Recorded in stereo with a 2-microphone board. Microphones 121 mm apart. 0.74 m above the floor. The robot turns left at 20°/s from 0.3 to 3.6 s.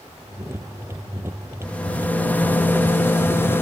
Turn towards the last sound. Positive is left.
turn(degrees=20)  # may be behind; listen again after turning